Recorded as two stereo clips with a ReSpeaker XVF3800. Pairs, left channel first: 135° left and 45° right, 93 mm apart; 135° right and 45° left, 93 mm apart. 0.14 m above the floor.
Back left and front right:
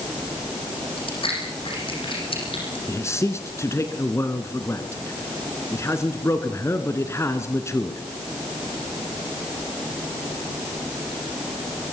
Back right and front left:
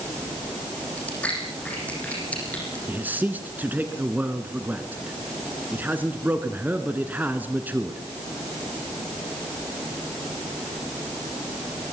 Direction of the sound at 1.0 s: 150° left.